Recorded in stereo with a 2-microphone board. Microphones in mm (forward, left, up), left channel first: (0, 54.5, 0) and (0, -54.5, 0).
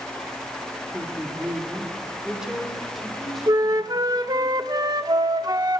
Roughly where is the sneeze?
No sneeze in this recording.